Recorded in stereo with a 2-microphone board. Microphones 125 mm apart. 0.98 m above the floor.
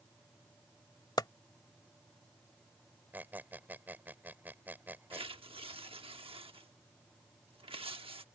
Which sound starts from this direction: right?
Tearing paper, at 5.1 s.